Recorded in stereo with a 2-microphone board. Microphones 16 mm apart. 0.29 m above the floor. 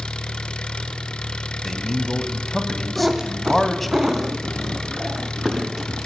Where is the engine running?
85° left, 0.9 m.